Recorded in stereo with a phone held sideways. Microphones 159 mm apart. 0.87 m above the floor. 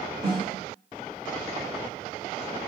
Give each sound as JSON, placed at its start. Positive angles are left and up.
{"t": 0.2, "sound": "a snare drum", "side_deg": -30, "distance_m": 1.6}